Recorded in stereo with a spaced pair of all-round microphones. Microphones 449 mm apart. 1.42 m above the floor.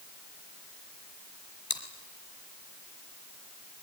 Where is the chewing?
50° left (ahead or behind), 3.5 m.